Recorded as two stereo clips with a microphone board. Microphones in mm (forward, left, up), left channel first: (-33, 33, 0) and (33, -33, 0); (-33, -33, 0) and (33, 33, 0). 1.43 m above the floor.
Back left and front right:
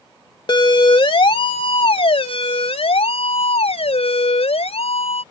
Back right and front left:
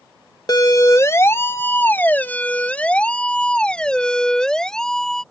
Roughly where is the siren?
Behind.